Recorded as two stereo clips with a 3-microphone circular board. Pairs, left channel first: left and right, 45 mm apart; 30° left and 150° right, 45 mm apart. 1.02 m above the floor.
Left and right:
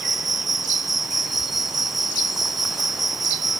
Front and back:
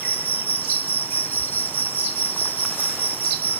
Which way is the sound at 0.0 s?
5° right.